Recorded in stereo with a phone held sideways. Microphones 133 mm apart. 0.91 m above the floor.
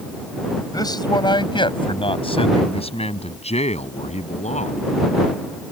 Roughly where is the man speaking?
Left.